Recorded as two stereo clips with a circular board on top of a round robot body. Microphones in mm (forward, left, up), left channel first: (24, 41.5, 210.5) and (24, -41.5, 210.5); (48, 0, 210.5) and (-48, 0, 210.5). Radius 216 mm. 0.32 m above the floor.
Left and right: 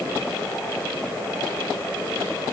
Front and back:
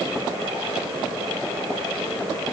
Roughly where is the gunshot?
I don't hear a gunshot.